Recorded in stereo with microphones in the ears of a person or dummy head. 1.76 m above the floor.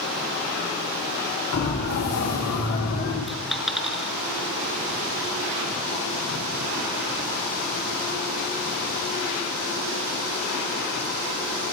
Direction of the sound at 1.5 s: 50° left (ahead or behind).